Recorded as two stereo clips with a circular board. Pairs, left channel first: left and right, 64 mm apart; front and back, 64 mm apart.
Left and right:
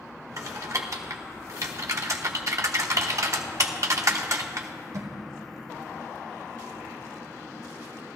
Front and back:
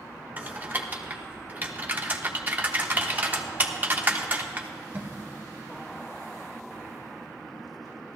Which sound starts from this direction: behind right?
Typing on a keyboard, at 0.4 s.